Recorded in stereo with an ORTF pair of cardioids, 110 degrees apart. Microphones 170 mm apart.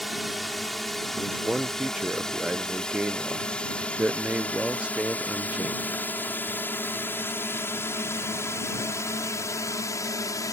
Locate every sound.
0.0 s a drone: straight ahead; by 10.5 s 20° left
1.1 s a man speaking: 5° right